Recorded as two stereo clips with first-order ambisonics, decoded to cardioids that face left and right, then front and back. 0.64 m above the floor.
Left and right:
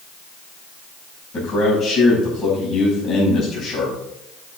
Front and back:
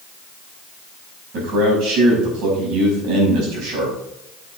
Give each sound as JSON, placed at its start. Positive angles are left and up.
{"t": 1.3, "sound": "a man speaking", "azimuth_deg": 155, "distance_m": 5.5}